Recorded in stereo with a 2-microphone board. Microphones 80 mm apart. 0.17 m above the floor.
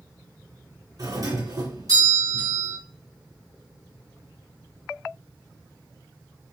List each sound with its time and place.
1.0 s a doorbell: 50° right (ahead or behind), 2.5 m